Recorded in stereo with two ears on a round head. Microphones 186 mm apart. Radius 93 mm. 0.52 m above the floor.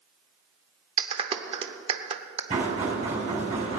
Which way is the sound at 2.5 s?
30° right (ahead or behind).